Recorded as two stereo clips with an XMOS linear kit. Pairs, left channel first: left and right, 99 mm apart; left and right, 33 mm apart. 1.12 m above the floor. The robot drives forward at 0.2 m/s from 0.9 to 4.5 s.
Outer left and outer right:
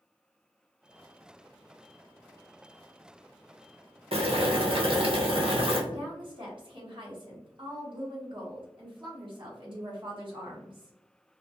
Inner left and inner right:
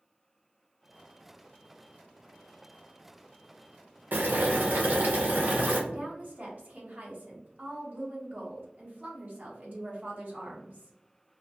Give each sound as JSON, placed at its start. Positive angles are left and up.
{"t": 4.1, "sound": "boiling", "side_deg": -75, "distance_m": 0.6}
{"t": 5.9, "sound": "a woman speaking", "side_deg": -55, "distance_m": 1.0}